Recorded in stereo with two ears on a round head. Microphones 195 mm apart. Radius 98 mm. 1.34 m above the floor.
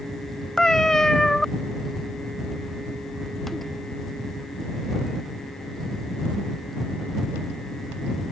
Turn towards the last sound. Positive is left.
turn(degrees=0)  # may be behind; listen again after turning